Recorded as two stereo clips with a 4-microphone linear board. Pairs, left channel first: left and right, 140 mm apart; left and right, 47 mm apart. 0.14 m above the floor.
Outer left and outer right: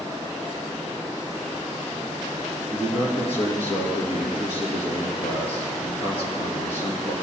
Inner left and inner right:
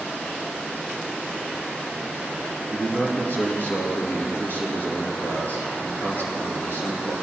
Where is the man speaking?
50° left (ahead or behind), 2.5 m.